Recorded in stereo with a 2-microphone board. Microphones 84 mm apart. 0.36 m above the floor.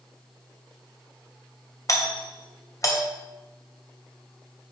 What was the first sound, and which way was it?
A doorbell, 40° left (ahead or behind).